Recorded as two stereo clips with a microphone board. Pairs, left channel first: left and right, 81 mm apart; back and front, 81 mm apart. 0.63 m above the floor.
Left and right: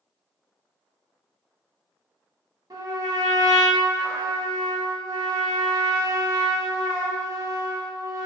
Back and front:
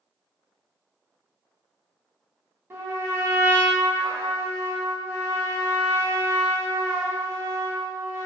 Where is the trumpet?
55° right, 0.8 m.